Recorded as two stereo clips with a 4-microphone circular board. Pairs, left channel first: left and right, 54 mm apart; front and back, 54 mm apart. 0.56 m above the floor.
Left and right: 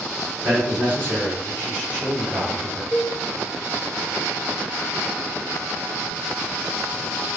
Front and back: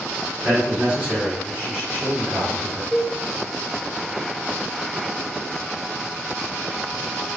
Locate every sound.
0.4 s a man speaking: 115° right, 1.7 m
2.9 s a cowbell: 70° left, 0.8 m